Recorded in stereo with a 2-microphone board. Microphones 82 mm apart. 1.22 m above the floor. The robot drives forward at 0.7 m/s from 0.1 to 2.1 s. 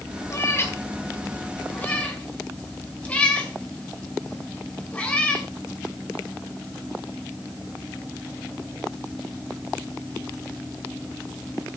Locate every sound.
0.3 s a cat meowing: 35° left (ahead or behind), 1.2 m; by 5.5 s 20° left (ahead or behind), 2 m